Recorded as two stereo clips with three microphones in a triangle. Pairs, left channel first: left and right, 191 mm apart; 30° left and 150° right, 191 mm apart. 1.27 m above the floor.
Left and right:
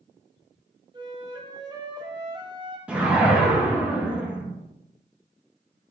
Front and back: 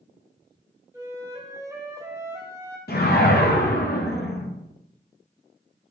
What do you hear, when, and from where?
0.9 s a flute: 100° right, 0.6 m
2.9 s a whoosh: 10° right, 0.7 m